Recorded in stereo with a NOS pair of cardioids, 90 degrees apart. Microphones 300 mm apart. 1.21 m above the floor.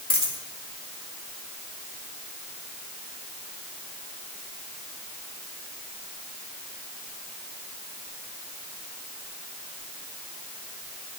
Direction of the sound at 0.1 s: 20° left.